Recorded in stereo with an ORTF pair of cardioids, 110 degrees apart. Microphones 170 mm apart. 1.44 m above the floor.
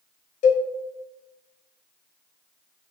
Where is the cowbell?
50° left, 0.6 m.